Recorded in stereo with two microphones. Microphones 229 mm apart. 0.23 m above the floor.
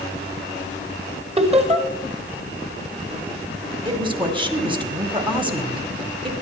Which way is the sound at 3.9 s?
20° right (ahead or behind).